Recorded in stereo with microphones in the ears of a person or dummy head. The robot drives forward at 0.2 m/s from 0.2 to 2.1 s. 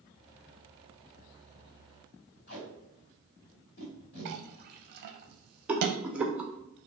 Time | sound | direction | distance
2.5 | tape being pulled | 55° left (ahead or behind) | 1.5 m
4.2 | a clink | 55° right (ahead or behind) | 0.5 m
5.7 | a rattle | 5° right (ahead or behind) | 0.5 m